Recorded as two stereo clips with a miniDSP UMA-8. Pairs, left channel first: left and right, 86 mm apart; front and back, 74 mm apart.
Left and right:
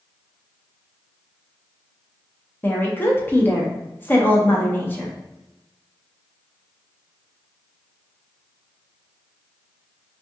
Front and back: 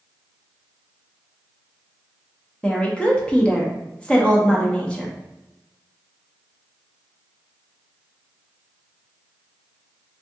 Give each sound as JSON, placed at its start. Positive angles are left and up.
{"t": 2.6, "sound": "a woman speaking", "azimuth_deg": 60, "distance_m": 0.7}